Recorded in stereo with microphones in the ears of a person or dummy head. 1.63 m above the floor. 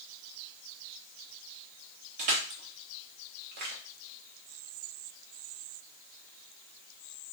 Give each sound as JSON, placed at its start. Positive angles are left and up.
{"t": 2.2, "sound": "crushing", "side_deg": -45, "distance_m": 0.9}